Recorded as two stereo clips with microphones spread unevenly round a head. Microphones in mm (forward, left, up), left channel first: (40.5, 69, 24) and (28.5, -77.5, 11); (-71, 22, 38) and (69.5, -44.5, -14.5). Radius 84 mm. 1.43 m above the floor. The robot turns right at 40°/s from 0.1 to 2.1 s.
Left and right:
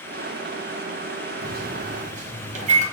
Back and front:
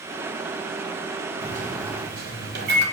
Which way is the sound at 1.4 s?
85° right.